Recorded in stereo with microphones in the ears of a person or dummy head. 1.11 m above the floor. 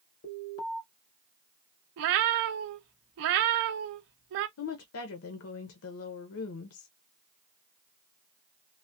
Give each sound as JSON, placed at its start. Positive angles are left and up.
{"t": 0.2, "sound": "an alarm", "side_deg": 35, "distance_m": 2.5}
{"t": 2.0, "sound": "a cat meowing", "side_deg": -55, "distance_m": 0.5}
{"t": 4.6, "sound": "a woman speaking", "side_deg": 65, "distance_m": 0.6}